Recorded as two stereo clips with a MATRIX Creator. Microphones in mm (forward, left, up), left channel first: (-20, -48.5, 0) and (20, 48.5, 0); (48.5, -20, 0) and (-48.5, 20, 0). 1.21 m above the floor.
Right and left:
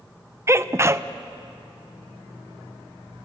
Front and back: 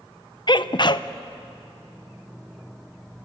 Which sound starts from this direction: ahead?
A sneeze, at 0.5 s.